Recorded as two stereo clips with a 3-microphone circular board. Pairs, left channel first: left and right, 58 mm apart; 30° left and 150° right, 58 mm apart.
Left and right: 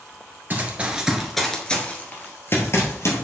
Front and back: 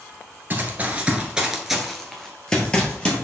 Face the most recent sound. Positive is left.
turn(degrees=95)